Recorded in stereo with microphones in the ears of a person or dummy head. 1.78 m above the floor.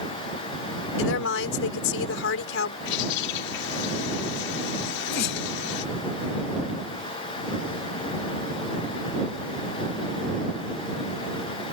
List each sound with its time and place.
1.0 s a woman speaking: 80° left
2.9 s a bird: 70° left (ahead or behind)
4.8 s a sneeze: 65° left (ahead or behind)